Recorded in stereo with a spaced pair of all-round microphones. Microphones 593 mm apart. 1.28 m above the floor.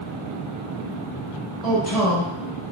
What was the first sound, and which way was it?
A man speaking, 70° left (ahead or behind).